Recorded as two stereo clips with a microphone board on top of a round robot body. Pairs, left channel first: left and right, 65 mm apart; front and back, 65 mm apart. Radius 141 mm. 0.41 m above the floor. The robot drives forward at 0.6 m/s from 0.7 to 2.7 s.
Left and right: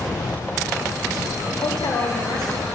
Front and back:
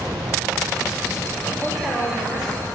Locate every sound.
1.6 s a woman speaking: 105° left, 3.5 m; by 2.7 s 115° left, 3.5 m